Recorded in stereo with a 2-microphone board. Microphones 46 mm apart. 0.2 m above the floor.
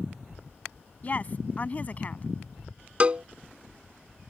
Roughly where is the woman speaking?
Left.